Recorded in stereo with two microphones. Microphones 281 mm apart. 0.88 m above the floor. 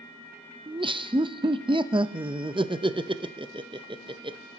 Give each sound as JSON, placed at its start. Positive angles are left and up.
{"t": 0.7, "sound": "laughter", "side_deg": -20, "distance_m": 0.5}